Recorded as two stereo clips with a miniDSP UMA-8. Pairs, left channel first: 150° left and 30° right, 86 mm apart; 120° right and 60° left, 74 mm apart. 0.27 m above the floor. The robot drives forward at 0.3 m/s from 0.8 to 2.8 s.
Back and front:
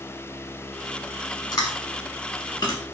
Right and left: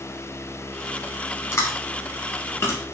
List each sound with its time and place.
1.5 s chewing: 170° right, 0.6 m; by 2.8 s 175° right, 1.0 m